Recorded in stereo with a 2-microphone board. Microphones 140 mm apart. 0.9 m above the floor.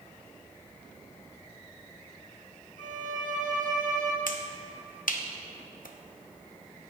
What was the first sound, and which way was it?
A violin, 65° right (ahead or behind).